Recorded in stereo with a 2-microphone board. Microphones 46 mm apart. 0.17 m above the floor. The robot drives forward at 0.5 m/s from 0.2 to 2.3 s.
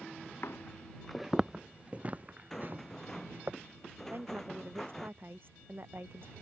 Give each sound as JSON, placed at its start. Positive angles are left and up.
{"t": 0.4, "sound": "footsteps", "side_deg": 60}
{"t": 2.5, "sound": "a rattle", "side_deg": 10}
{"t": 4.1, "sound": "a woman speaking", "side_deg": -50}